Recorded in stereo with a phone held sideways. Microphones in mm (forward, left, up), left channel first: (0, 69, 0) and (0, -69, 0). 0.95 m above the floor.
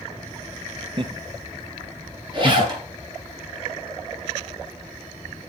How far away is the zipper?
About 7 m.